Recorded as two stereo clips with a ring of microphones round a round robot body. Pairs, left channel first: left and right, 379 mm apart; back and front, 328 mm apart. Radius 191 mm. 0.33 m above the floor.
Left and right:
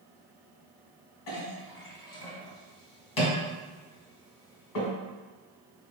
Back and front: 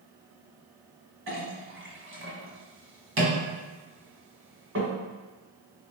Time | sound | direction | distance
1.3 | a clink | 55° left | 1.5 m